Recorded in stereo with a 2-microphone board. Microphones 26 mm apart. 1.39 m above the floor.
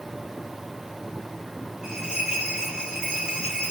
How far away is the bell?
About 3 m.